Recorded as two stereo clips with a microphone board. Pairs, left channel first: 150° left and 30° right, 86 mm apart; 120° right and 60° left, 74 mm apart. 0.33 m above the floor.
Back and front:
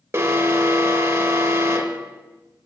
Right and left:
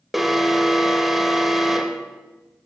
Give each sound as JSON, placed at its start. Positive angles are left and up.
{"t": 0.1, "sound": "an alarm", "azimuth_deg": -25, "distance_m": 1.0}